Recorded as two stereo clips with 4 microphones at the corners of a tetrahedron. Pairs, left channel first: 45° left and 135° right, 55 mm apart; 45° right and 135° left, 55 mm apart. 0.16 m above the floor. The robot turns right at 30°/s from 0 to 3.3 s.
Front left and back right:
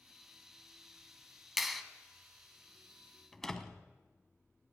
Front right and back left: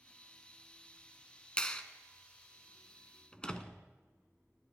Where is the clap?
55° right, 0.9 m; by 1.8 s 50° right, 0.9 m.